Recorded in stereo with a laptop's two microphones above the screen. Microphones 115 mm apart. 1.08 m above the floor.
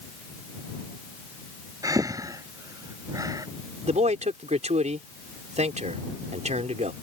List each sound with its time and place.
1.8 s breathing: 30° right (ahead or behind)
3.9 s a man speaking: 80° right